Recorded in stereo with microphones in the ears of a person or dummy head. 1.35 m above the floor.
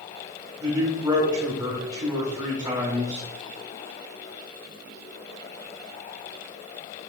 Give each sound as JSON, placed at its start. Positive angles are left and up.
{"t": 0.6, "sound": "a man speaking", "side_deg": -15, "distance_m": 4.0}